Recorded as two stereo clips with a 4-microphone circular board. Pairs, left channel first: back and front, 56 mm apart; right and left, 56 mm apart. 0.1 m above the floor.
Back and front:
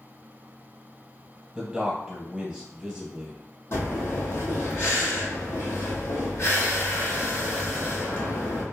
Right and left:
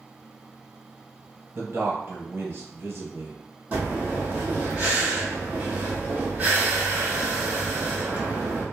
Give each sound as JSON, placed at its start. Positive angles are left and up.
{"t": 1.6, "sound": "a man speaking", "azimuth_deg": 80, "distance_m": 1.9}
{"t": 3.7, "sound": "breathing", "azimuth_deg": 150, "distance_m": 1.6}